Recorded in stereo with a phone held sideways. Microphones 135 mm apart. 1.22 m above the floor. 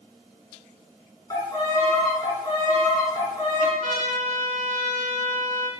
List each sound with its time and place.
1.3 s a violin: 25° left (ahead or behind), 2 m
3.8 s a trumpet: 75° right (ahead or behind), 2.0 m